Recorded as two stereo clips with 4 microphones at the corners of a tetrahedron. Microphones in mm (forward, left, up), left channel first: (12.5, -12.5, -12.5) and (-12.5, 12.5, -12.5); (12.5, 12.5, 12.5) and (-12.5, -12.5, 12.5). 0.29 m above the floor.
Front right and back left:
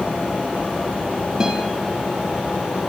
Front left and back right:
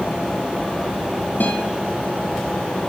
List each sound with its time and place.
1.4 s a guitar: 65° left, 2.5 m